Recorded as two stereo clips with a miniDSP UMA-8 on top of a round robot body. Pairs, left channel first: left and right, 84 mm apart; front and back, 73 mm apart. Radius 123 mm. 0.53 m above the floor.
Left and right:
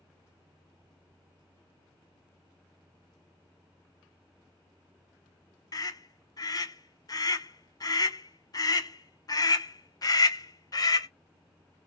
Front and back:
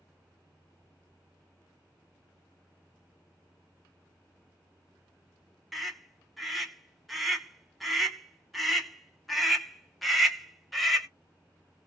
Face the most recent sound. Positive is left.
turn(degrees=90)